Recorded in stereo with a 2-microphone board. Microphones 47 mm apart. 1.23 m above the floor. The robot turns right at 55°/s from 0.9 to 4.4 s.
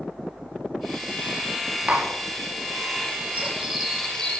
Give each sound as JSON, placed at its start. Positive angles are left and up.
{"t": 1.9, "sound": "tapping", "side_deg": -30, "distance_m": 4.5}
{"t": 3.3, "sound": "cutlery clinking", "azimuth_deg": -30, "distance_m": 9.0}